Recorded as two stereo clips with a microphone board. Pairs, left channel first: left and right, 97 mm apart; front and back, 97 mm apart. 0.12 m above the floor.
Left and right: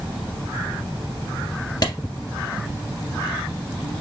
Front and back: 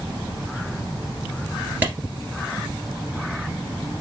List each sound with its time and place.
1.8 s a clap: 115° left, 2.0 m